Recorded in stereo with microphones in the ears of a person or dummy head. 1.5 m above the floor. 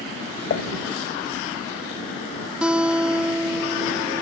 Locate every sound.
0.5 s dishes clattering: 50° left (ahead or behind)
2.6 s a guitar: centre (ahead or behind)